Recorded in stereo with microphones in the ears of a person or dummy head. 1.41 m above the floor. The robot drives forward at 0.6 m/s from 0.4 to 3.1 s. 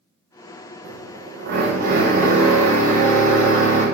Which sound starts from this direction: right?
A drill, at 0.8 s.